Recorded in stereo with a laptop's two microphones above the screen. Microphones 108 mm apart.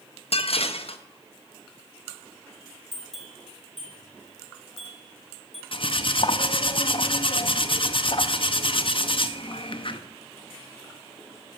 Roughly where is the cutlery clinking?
Left.